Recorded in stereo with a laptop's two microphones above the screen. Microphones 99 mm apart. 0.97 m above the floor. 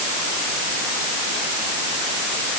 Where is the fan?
No fan in this recording.